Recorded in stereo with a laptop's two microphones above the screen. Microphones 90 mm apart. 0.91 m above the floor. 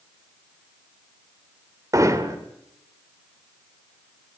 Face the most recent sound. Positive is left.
turn(degrees=-40)  # may be behind; listen again after turning